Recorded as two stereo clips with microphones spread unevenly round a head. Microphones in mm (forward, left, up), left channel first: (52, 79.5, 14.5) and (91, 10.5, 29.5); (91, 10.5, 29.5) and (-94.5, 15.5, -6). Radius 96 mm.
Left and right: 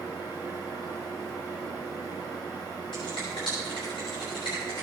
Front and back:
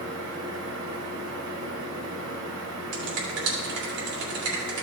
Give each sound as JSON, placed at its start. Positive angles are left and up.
{"t": 0.0, "sound": "a fan", "azimuth_deg": -165, "distance_m": 3.0}
{"t": 2.9, "sound": "a finger snap", "azimuth_deg": 180, "distance_m": 3.0}